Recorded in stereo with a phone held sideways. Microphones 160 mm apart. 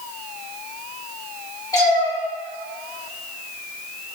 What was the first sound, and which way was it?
A cat meowing, 25° left (ahead or behind).